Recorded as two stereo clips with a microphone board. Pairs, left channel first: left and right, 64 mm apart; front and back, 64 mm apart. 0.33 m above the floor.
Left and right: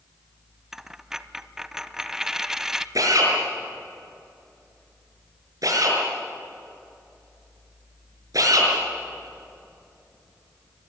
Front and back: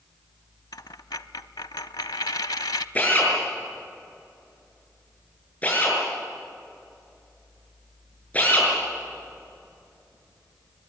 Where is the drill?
65° right, 6.5 m.